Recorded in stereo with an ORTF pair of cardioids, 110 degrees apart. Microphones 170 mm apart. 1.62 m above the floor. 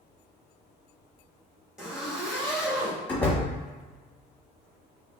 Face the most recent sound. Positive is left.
turn(degrees=10)